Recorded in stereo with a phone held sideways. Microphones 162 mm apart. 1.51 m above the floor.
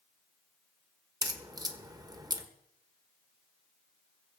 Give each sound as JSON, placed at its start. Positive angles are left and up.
{"t": 1.2, "sound": "a crack", "side_deg": -25, "distance_m": 1.2}